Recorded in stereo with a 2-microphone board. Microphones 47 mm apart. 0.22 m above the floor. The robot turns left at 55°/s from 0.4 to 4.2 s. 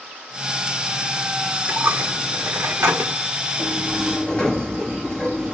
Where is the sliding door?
160° right, 5.5 m; by 5.5 s 165° left, 5.5 m.